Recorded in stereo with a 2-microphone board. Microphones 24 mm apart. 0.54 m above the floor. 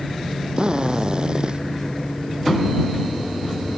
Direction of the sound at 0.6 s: 35° right (ahead or behind).